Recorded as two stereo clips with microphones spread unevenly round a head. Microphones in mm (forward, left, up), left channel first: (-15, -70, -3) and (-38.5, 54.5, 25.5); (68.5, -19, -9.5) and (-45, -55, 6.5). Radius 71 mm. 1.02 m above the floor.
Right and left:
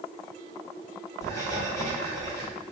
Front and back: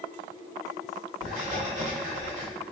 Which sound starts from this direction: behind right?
Writing, at 1.2 s.